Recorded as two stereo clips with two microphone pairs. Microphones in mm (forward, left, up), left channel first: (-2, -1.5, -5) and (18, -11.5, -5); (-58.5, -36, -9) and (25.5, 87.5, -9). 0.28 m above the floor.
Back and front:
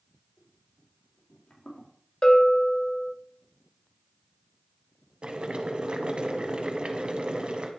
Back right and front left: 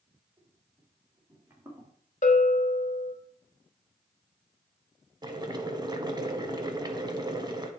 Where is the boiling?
Straight ahead, 0.8 m.